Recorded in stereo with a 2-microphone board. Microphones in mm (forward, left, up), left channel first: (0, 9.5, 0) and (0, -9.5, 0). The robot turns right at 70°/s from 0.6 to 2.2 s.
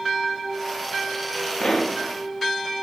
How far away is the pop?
About 0.6 m.